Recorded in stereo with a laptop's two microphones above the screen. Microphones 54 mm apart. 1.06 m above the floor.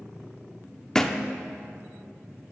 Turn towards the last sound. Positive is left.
turn(degrees=10)  # may be behind; listen again after turning